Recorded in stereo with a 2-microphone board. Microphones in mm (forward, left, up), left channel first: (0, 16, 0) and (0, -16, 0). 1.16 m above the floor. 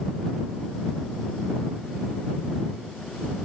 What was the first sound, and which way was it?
Only background noise.